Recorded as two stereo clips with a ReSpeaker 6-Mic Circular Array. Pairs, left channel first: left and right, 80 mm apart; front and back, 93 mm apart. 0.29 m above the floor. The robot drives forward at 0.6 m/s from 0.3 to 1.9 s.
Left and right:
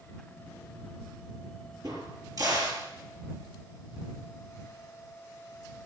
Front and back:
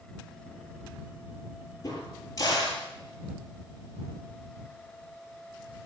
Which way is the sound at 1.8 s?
50° right.